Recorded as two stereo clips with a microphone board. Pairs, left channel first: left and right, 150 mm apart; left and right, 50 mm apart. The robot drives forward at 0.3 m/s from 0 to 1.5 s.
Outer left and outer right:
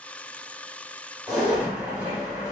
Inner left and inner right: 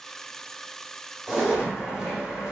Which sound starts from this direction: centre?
A zipper, at 1.3 s.